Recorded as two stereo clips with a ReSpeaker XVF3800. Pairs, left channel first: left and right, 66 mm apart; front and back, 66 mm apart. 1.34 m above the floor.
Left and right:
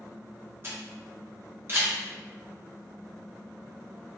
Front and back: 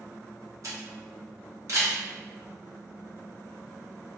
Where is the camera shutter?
145° right, 1.2 m.